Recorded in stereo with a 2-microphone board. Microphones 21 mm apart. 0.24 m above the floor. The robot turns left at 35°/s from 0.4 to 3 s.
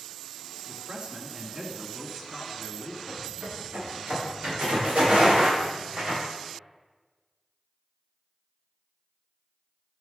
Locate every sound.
0.7 s a man speaking: 100° right, 2 m; by 3.0 s straight behind, 2 m
3.1 s footsteps: 75° right (ahead or behind), 5.5 m; by 6.2 s 50° right (ahead or behind), 8.5 m